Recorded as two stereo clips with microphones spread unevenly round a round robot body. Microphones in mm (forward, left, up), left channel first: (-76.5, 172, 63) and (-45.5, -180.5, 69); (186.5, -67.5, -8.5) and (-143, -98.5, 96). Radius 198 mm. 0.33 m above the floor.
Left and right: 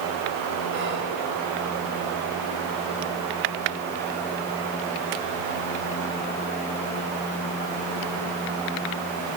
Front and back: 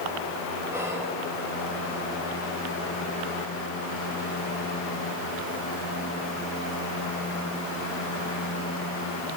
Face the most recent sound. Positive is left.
turn(degrees=-65)